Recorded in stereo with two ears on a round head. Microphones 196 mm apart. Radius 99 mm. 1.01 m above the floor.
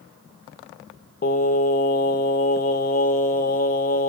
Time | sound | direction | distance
1.2 | singing | 40° left (ahead or behind) | 0.6 m